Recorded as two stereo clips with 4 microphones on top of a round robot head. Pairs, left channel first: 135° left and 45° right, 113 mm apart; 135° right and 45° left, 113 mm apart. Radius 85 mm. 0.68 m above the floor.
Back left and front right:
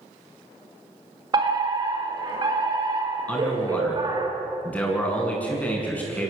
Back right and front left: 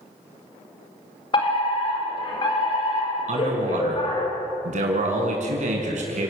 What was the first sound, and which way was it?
A fire alarm, 95° right.